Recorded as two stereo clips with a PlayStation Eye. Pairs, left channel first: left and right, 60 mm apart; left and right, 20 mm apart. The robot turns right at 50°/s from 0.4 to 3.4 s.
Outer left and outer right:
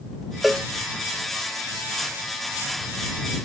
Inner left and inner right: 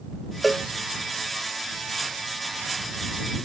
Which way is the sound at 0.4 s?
5° right (ahead or behind).